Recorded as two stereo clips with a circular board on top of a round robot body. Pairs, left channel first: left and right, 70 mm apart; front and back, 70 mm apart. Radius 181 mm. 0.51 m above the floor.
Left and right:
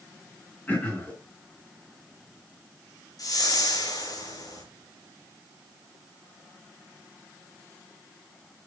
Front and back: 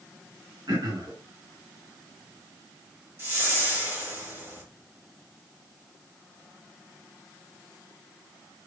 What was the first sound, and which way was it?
Throat clearing, 155° left.